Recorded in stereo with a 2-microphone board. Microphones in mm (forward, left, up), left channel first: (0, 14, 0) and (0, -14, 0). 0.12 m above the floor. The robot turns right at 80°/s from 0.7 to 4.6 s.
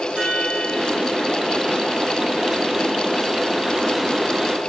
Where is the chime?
40° right, 3.5 m; by 1.1 s 10° right, 3.5 m.